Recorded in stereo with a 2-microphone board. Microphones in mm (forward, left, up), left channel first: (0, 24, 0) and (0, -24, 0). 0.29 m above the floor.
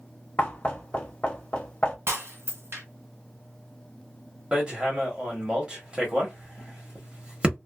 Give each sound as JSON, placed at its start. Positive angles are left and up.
{"t": 0.4, "sound": "knocking", "side_deg": 20, "distance_m": 0.8}
{"t": 2.1, "sound": "breaking glass", "side_deg": -65, "distance_m": 1.6}
{"t": 4.5, "sound": "hammering", "side_deg": -25, "distance_m": 1.1}